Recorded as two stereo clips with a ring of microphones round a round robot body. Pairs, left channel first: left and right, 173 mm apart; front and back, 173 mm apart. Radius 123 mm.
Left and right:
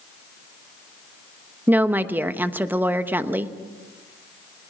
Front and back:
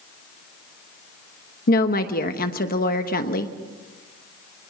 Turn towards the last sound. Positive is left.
turn(degrees=-15)